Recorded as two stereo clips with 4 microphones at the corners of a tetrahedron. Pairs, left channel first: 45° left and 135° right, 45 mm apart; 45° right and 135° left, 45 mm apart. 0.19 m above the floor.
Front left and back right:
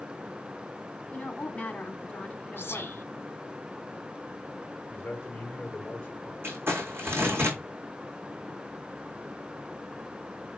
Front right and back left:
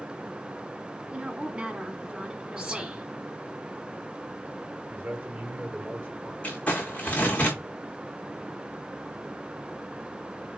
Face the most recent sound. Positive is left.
turn(degrees=-105)